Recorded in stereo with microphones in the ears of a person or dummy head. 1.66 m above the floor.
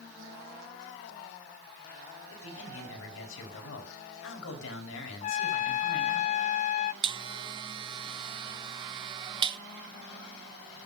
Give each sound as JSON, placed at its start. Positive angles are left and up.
{"t": 2.3, "sound": "a man speaking", "side_deg": 80, "distance_m": 5.5}
{"t": 5.2, "sound": "a trumpet", "side_deg": 35, "distance_m": 0.5}
{"t": 7.0, "sound": "a buzzer", "side_deg": -30, "distance_m": 0.6}